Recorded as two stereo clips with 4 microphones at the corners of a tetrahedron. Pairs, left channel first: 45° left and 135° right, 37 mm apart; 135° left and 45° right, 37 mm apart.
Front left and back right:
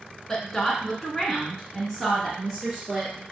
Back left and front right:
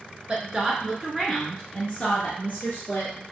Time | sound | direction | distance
0.3 | a woman speaking | 20° right | 1.2 m